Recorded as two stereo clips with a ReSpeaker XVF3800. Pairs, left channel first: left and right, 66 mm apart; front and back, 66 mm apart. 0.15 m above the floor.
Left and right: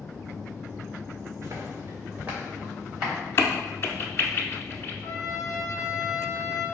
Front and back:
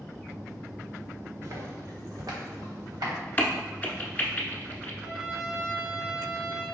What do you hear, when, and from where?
1.4 s footsteps: 130° right, 1.6 m; by 3.1 s 175° right, 3.5 m
3.4 s a crack: 55° left, 0.6 m
5.0 s a trumpet: 120° left, 1.3 m